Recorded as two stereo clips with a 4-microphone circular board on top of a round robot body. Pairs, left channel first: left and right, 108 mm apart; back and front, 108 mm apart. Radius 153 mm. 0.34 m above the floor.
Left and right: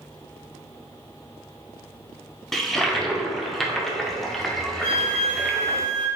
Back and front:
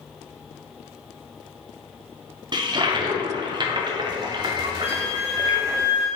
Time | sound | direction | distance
2.5 | a toilet flushing | 5° left | 0.8 m
4.8 | a flute | 20° left | 1.9 m